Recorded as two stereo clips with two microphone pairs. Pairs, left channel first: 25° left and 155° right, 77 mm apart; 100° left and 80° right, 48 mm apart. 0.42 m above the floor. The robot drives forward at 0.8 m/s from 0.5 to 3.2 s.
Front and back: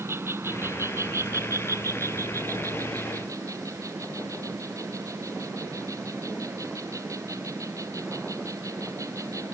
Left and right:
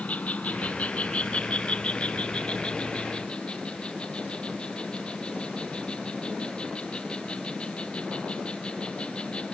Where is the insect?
155° left; by 9.6 s 165° left.